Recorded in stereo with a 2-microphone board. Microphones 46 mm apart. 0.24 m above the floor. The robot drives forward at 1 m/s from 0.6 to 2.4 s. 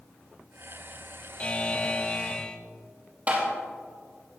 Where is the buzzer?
25° left (ahead or behind), 0.8 m; by 2.6 s 20° left (ahead or behind), 1.0 m.